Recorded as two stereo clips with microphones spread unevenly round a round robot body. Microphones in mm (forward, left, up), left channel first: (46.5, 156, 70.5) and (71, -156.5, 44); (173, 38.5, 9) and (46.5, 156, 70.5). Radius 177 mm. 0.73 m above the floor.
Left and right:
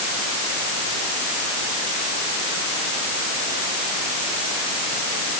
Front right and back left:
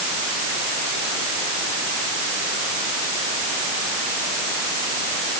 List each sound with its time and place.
Only background noise.